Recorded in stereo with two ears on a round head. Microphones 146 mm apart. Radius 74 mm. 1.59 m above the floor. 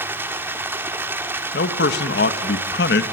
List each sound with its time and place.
0.0 s running water: 15° right (ahead or behind), 1.5 m
1.5 s a man speaking: 75° left (ahead or behind), 1.7 m